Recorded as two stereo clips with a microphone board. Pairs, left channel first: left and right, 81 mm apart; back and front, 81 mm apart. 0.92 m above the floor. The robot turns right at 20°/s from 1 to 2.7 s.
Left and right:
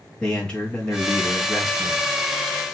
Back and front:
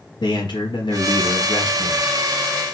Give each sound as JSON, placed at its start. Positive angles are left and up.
{"t": 0.2, "sound": "a man speaking", "azimuth_deg": 170, "distance_m": 1.3}